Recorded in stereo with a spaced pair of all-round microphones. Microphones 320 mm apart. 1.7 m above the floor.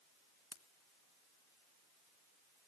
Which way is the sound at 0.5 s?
50° left (ahead or behind).